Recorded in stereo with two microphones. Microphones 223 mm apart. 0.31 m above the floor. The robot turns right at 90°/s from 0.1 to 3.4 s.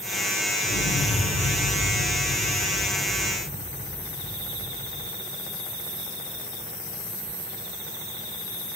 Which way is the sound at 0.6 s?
125° left.